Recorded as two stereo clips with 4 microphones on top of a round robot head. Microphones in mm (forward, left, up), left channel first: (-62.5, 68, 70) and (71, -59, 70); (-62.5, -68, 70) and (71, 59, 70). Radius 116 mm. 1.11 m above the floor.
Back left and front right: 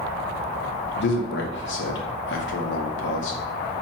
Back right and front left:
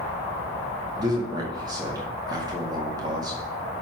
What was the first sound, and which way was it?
A man speaking, 115° left.